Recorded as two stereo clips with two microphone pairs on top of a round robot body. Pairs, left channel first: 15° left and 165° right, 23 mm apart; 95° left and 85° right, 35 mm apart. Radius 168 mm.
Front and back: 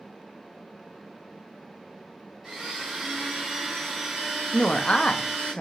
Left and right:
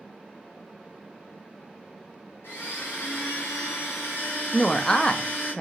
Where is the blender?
110° left, 0.9 m.